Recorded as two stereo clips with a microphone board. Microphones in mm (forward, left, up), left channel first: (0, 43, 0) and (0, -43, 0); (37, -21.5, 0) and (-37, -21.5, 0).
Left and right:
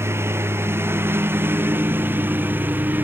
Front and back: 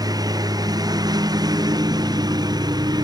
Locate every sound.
0.0 s a lawn mower: 150° right; by 3.0 s 155° right